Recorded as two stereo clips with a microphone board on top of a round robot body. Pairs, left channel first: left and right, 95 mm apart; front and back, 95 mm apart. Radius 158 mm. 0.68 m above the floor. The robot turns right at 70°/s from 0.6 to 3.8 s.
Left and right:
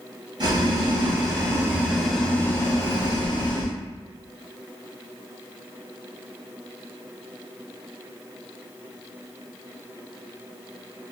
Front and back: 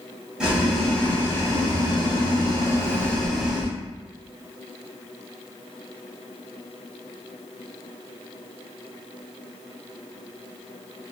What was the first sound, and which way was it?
Boiling, 100° right.